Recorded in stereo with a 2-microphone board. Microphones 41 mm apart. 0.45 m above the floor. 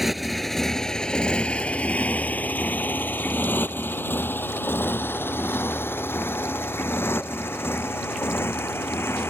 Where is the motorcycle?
5° right (ahead or behind); by 9.3 s 75° left (ahead or behind).